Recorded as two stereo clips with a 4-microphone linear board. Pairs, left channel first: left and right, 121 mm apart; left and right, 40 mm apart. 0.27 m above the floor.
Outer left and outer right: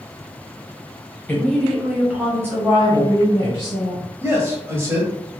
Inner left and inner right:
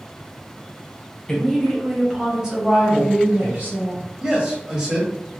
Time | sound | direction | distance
1.3 | a woman speaking | 10° left (ahead or behind) | 1.4 m
4.2 | a man speaking | 20° right (ahead or behind) | 1.1 m